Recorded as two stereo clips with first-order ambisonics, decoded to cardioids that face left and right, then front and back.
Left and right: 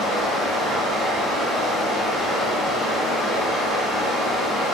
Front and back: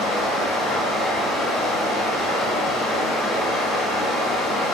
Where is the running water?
15° right, 1.7 m.